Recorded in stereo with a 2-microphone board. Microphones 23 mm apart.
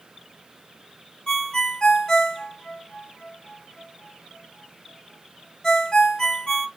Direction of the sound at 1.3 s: 25° left (ahead or behind).